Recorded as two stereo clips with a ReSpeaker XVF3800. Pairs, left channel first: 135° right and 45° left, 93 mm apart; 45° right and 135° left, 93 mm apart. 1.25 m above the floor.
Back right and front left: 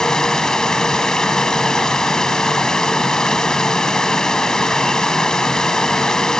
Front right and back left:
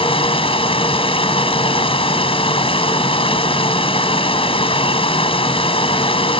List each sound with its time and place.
0.0 s running water: 50° right